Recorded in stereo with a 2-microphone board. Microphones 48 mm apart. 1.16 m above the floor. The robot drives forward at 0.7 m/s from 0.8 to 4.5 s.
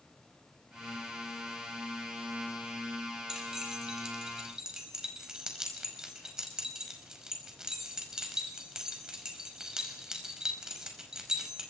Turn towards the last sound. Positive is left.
turn(degrees=-15)  # may be behind; listen again after turning